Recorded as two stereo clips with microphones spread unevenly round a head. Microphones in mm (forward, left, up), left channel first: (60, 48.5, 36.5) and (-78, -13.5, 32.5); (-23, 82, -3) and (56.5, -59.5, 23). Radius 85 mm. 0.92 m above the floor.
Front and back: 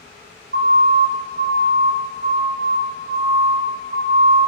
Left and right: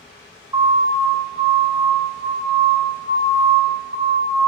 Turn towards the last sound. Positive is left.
turn(degrees=-100)